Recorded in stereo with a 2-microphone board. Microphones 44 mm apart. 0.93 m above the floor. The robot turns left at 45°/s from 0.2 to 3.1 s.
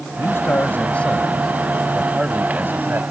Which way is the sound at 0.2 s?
65° left.